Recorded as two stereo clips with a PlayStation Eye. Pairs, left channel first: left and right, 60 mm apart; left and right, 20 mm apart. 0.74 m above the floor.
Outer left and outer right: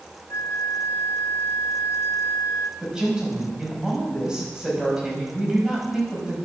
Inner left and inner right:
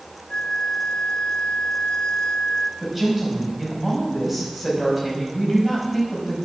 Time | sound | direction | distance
0.3 | a flute | 55° left (ahead or behind) | 0.9 m
2.8 | a woman speaking | 15° right (ahead or behind) | 5 m